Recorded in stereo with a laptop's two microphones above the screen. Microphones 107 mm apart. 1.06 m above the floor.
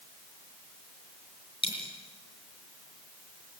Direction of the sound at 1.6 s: 50° left (ahead or behind).